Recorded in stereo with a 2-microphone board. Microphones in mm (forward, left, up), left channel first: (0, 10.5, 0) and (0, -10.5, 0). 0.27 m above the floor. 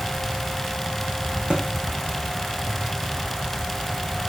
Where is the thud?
55° right (ahead or behind), 5.5 m.